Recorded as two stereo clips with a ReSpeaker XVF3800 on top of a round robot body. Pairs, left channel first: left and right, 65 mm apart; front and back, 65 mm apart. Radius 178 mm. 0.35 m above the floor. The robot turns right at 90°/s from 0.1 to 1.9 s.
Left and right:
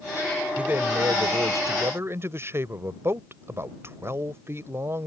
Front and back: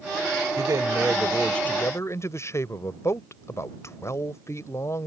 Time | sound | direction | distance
0.6 | a man speaking | 165° right | ?